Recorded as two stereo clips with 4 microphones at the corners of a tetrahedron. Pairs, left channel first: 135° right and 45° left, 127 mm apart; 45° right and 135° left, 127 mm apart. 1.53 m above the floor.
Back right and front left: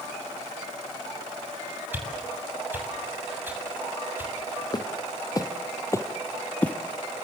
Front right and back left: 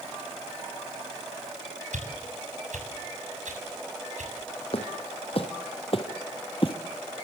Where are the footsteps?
80° right, 3.5 m; by 6.8 s 60° right, 2 m.